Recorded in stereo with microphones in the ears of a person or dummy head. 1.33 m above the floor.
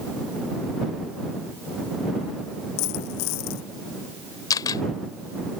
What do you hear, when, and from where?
2.8 s a dropped coin: 85° left
4.5 s a camera shutter: 20° left (ahead or behind)